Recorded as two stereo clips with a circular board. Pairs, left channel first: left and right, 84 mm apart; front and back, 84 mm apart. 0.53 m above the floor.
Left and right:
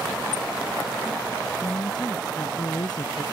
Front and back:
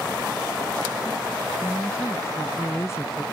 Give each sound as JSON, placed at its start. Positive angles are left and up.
{"t": 1.6, "sound": "a woman speaking", "azimuth_deg": 55}